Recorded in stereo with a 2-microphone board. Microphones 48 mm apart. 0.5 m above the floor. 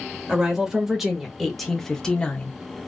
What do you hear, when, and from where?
0.3 s a woman speaking: 15° right (ahead or behind), 1.5 m; by 2.5 s 25° left (ahead or behind), 0.7 m